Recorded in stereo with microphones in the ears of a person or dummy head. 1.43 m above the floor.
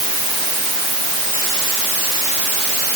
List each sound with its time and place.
Only background noise.